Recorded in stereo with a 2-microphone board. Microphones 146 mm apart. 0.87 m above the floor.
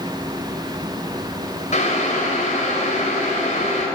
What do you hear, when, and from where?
1.7 s boiling: 50° left (ahead or behind), 3 m